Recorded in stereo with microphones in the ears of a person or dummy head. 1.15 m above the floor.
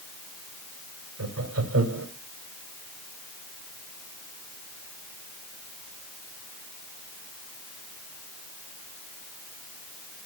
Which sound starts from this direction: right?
Laughter, at 1.2 s.